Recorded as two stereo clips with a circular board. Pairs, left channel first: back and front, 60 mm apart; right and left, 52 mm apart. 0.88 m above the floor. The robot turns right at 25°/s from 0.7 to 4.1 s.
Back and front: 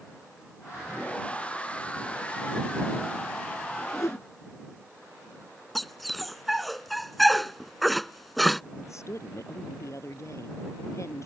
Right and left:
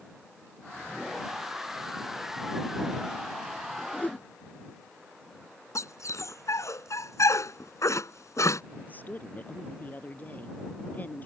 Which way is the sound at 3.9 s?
155° right.